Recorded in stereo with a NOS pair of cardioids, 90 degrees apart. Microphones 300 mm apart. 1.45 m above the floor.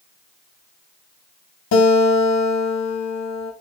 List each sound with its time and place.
1.7 s a guitar: 65° left, 4 m